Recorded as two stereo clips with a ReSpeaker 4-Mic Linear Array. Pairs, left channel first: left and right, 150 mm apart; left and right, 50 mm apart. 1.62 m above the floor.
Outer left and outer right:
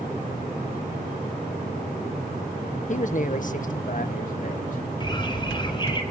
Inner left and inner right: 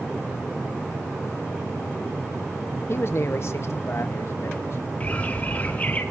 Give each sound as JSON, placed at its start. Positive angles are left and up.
{"t": 2.9, "sound": "a man speaking", "side_deg": 50, "distance_m": 0.8}
{"t": 5.0, "sound": "a bird", "side_deg": 30, "distance_m": 5.0}